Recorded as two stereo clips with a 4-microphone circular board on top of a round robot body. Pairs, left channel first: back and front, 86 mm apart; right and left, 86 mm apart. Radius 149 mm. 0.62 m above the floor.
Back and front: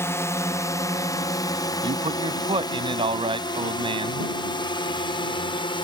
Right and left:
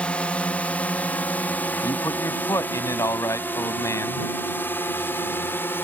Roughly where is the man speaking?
Ahead right.